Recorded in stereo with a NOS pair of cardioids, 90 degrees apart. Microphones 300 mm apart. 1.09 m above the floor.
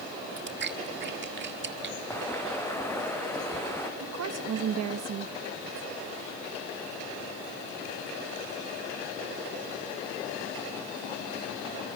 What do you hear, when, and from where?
0.4 s chewing: 35° right, 1.7 m
2.1 s footsteps: 10° left, 4.5 m
4.0 s a woman speaking: 60° right, 1.4 m